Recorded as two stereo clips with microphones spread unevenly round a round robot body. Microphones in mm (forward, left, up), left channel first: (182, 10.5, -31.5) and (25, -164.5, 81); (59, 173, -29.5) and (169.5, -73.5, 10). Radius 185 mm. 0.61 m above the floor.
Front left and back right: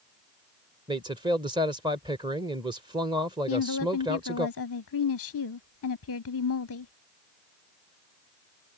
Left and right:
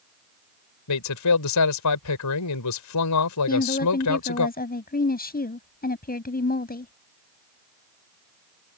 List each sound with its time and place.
0.9 s a man speaking: 140° left
3.5 s a woman speaking: 55° left